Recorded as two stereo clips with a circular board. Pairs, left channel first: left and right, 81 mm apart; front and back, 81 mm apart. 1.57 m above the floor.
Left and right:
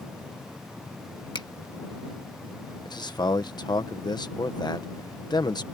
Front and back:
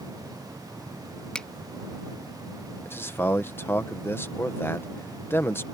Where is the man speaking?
60° left.